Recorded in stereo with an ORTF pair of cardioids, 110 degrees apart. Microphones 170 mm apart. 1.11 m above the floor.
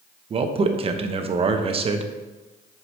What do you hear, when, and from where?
0.3 s a man speaking: 35° right, 0.8 m